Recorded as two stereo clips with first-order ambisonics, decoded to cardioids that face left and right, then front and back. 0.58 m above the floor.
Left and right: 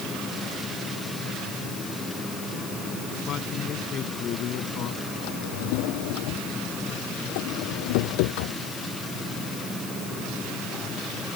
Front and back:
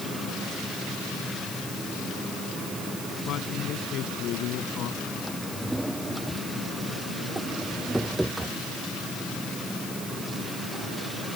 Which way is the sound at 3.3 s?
40° left.